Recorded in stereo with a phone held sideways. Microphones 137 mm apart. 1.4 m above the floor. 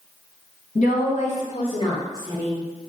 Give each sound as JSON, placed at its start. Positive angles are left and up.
{"t": 0.8, "sound": "a woman speaking", "side_deg": 70, "distance_m": 1.5}